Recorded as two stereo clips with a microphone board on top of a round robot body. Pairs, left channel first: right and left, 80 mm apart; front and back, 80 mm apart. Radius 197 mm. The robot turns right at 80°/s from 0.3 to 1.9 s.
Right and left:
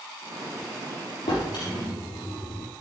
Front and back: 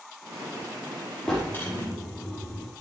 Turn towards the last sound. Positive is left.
turn(degrees=-40)